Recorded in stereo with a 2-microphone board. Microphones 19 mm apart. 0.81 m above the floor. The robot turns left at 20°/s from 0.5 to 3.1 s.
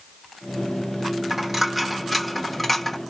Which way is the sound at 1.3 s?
15° right (ahead or behind).